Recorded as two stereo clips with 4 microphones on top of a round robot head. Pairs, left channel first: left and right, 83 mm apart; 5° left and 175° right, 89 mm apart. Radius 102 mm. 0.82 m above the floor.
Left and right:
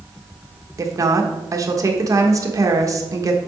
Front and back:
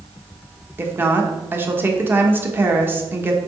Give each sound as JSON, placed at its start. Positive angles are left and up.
{"t": 0.8, "sound": "a woman speaking", "azimuth_deg": -115, "distance_m": 1.1}